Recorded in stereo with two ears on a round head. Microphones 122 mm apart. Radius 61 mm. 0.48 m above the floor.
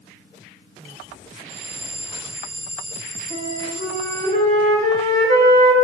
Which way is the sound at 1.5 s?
45° right (ahead or behind).